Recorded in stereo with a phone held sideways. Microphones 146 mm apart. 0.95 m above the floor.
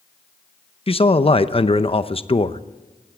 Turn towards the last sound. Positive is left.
turn(degrees=40)  # may be behind; listen again after turning